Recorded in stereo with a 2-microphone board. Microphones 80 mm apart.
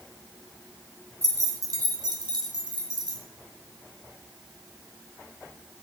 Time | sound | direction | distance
1.2 | keys jangling | 40° right (ahead or behind) | 1.4 m